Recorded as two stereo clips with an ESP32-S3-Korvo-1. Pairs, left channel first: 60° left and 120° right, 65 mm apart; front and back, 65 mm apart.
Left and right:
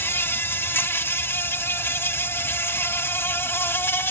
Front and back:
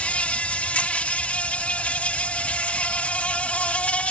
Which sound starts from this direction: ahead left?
An insect, at 0.0 s.